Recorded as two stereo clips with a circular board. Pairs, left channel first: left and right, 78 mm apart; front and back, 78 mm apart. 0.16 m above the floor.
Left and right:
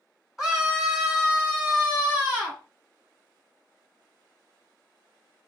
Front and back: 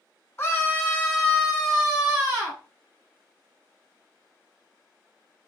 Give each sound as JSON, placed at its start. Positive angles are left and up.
{"t": 0.4, "sound": "a scream", "azimuth_deg": -10, "distance_m": 1.5}